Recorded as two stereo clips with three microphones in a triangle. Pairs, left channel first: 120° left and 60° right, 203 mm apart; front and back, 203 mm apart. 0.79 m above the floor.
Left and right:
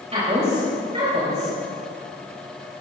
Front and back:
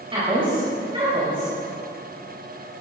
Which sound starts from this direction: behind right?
A woman speaking, at 0.1 s.